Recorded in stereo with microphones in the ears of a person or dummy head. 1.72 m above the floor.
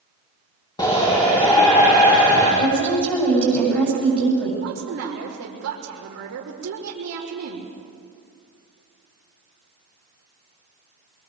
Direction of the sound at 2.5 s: 10° left (ahead or behind).